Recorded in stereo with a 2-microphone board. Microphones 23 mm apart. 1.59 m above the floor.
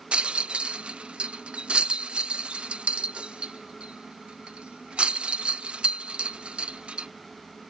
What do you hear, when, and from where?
0.1 s a rattle: 60° right (ahead or behind)